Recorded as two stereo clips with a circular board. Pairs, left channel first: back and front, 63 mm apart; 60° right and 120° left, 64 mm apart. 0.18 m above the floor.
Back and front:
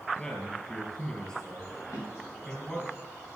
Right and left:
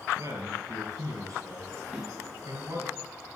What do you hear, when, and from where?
0.2 s a man speaking: 105° left, 3.5 m
1.9 s a drawer: 150° right, 6.5 m